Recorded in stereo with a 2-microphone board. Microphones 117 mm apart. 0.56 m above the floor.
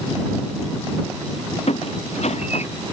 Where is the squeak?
60° left (ahead or behind).